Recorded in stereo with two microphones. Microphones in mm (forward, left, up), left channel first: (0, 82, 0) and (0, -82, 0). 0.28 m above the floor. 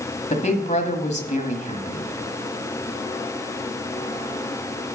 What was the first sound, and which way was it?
A woman speaking, 45° left (ahead or behind).